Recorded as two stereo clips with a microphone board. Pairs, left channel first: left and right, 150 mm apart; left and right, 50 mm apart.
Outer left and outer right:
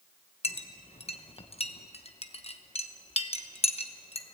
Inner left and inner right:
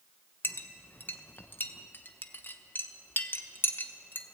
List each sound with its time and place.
0.4 s a clink: 40° left (ahead or behind), 0.9 m